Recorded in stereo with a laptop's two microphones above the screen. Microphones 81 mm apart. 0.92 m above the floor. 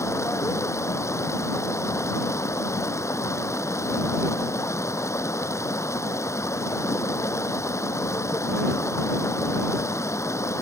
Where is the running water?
35° left (ahead or behind).